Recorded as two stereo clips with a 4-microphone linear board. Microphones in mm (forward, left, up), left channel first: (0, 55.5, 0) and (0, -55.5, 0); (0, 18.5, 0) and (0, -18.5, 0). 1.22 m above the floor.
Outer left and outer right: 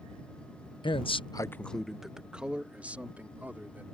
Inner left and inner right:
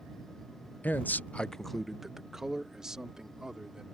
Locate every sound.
0.8 s a man speaking: 45° left (ahead or behind); by 3.9 s 15° right (ahead or behind)